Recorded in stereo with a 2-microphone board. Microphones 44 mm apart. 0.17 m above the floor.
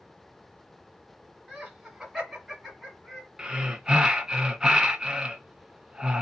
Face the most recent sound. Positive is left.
turn(degrees=-15)  # may be behind; listen again after turning